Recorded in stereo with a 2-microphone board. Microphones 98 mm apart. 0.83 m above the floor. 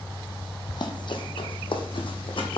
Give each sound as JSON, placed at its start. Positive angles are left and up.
{"t": 0.7, "sound": "running footsteps", "side_deg": 45, "distance_m": 1.4}